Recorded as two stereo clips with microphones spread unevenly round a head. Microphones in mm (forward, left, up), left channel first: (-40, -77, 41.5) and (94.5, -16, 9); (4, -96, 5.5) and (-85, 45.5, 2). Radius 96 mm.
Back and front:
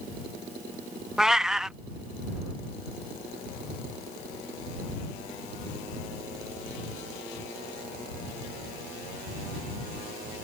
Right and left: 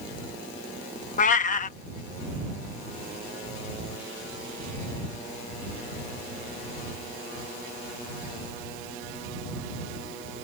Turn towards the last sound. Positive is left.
turn(degrees=-70)